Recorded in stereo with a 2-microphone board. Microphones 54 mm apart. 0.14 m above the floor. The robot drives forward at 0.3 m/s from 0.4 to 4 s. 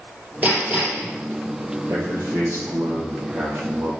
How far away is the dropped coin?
No dropped coin in this recording.